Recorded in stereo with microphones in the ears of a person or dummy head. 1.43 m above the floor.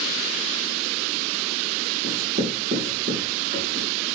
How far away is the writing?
About 3.5 m.